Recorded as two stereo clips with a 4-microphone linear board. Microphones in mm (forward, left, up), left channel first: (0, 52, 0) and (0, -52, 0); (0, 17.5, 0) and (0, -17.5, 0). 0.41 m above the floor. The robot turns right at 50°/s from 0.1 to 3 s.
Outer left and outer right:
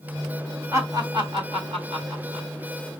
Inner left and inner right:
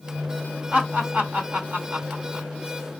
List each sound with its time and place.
0.7 s laughter: 30° right (ahead or behind), 2 m; by 2.5 s 50° right (ahead or behind), 2 m